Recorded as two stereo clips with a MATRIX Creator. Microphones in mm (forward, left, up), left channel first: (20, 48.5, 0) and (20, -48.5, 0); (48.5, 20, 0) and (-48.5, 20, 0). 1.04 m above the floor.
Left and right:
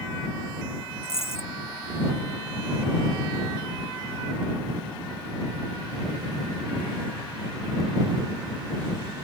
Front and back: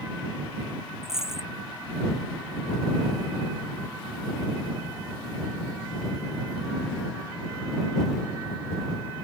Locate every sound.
1.0 s a dropped coin: 95° left